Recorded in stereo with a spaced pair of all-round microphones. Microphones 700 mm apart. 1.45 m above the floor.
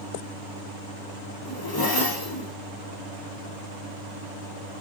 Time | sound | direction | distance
1.4 | a zipper | 30° left (ahead or behind) | 1.0 m